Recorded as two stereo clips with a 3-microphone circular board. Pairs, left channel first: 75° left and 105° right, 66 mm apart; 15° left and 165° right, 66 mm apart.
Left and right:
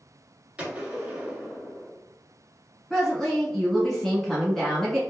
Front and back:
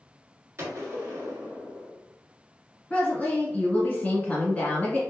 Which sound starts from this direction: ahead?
A woman speaking, at 2.9 s.